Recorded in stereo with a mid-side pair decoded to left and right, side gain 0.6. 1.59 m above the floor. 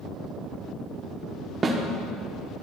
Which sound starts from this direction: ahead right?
A snare drum, at 1.6 s.